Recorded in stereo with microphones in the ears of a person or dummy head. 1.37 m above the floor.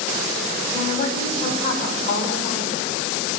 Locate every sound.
0.7 s a woman speaking: 40° left (ahead or behind), 4.5 m; by 2.8 s 45° left (ahead or behind), 5.5 m